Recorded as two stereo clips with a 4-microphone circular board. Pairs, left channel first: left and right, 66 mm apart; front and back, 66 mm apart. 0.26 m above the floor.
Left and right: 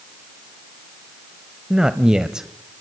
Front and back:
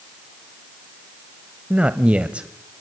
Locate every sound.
1.7 s a man speaking: 150° right, 1.0 m